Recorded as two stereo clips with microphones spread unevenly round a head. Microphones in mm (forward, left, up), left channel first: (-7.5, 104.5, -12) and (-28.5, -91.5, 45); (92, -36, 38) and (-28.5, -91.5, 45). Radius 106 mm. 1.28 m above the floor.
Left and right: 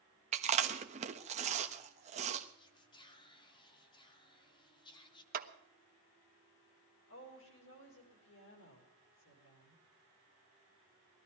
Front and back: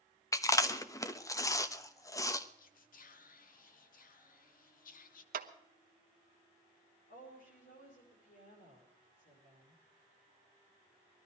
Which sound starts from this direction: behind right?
A clap, at 5.3 s.